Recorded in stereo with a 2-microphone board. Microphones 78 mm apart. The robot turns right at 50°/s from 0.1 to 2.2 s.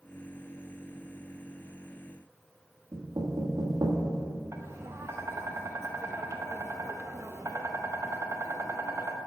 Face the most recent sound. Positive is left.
turn(degrees=-35)  # may be behind; listen again after turning